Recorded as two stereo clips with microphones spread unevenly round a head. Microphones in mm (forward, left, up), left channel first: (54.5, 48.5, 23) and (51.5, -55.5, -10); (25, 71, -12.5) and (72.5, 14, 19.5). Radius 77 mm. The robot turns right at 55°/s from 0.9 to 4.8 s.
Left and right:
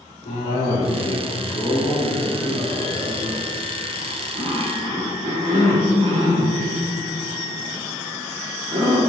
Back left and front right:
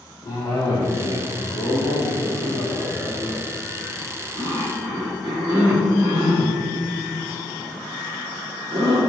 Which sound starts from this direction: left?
A cough, at 0.2 s.